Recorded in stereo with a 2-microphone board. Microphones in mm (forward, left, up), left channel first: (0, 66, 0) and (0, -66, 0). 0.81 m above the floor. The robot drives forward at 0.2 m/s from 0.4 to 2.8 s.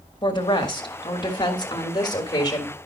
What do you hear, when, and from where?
0.2 s a woman speaking: 35° left (ahead or behind), 1.3 m; by 2.8 s 30° left (ahead or behind), 1.5 m